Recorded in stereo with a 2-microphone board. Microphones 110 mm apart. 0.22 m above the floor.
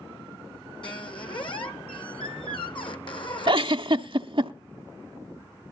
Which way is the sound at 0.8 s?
50° left (ahead or behind).